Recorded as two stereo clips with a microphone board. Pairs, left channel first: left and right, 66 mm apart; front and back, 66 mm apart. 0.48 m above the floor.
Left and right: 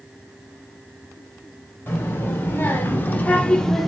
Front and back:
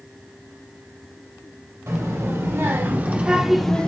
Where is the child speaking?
140° left, 1.3 m; by 3.9 s straight ahead, 0.5 m.